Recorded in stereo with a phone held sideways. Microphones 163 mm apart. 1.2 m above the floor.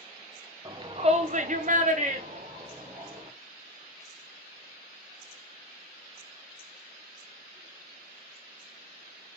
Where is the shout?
25° right (ahead or behind), 0.8 m; by 3.3 s 40° right (ahead or behind), 2.0 m.